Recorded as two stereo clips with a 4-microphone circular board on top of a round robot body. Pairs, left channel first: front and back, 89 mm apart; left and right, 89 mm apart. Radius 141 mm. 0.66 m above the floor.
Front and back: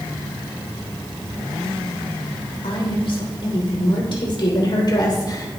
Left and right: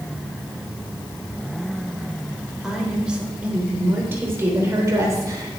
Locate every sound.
2.6 s a woman speaking: 5° right, 3.5 m; by 5.6 s 45° right, 3.5 m